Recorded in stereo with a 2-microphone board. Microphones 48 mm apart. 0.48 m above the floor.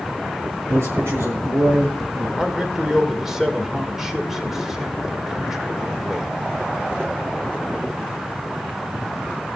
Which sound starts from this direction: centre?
A man speaking, at 2.4 s.